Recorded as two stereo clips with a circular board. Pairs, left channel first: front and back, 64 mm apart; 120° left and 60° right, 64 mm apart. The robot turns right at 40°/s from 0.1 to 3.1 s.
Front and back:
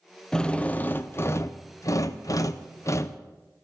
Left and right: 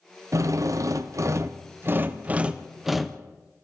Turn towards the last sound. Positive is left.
turn(degrees=35)